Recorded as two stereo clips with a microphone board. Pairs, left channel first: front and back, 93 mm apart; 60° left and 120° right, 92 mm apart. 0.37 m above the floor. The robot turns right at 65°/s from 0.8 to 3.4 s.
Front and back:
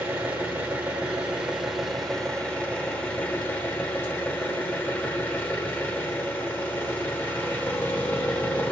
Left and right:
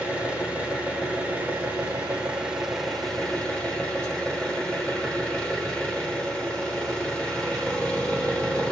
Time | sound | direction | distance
0.0 | an engine running | 170° right | 1.0 m